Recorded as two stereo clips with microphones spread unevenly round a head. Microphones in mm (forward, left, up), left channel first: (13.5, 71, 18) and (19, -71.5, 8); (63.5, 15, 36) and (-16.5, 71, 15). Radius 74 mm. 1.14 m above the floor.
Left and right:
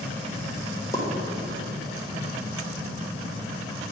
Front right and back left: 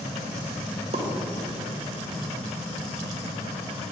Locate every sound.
0.9 s a pop: 165° left, 1.1 m